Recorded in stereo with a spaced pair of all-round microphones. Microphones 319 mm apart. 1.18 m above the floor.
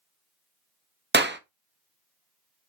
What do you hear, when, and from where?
1.1 s a clap: 35° right (ahead or behind), 0.7 m